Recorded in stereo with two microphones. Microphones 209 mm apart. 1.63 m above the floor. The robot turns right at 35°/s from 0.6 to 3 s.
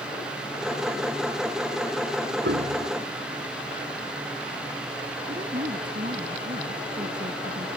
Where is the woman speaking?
40° right (ahead or behind).